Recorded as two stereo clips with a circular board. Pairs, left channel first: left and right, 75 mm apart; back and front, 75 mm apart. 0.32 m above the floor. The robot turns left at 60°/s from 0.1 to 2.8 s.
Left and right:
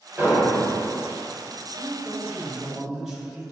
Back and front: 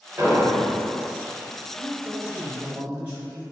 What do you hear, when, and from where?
0.2 s an explosion: 40° right, 1.0 m; by 0.7 s 70° right, 1.0 m
1.8 s a man speaking: 45° left, 0.9 m; by 3.4 s 15° right, 0.9 m